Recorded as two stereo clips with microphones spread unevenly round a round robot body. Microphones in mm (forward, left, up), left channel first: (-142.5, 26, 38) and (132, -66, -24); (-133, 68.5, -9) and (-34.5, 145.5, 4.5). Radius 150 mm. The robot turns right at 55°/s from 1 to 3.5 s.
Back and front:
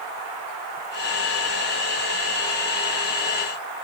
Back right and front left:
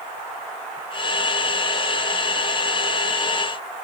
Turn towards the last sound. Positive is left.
No sound to turn to.